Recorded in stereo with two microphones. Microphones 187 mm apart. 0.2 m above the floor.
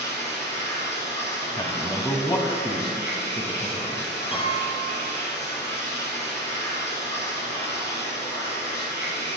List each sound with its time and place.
0.0 s running water: 70° left (ahead or behind), 4.5 m
1.6 s a man speaking: 20° left (ahead or behind), 1.0 m
4.3 s a piano: 30° left (ahead or behind), 1.9 m